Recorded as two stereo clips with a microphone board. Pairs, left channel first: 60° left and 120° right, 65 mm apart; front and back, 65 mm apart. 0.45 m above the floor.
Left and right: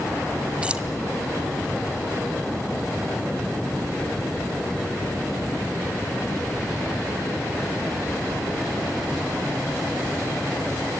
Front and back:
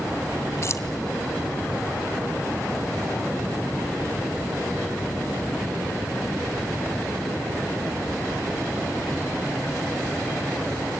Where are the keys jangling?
45° right, 1.3 m.